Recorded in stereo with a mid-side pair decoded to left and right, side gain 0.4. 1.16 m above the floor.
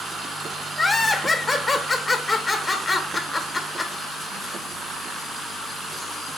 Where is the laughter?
20° left, 1.1 m.